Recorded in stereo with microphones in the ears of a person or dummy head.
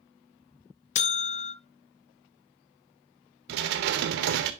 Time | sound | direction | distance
0.9 | a buzzer | 45° left (ahead or behind) | 0.5 m
3.5 | dishes clattering | 60° right (ahead or behind) | 0.6 m